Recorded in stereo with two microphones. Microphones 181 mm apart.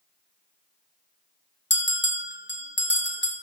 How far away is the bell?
About 1.5 m.